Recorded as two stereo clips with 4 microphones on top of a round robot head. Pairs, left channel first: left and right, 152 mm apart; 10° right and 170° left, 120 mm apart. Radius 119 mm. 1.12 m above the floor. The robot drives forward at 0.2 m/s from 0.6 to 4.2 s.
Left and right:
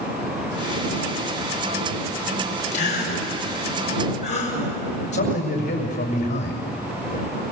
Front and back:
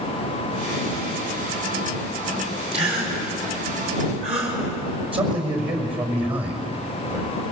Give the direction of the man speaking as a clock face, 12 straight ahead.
8 o'clock.